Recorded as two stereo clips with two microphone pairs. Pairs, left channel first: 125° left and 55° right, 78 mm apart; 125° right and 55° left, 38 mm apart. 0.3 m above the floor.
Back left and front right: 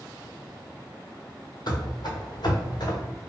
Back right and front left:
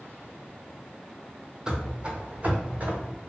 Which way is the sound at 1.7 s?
130° left.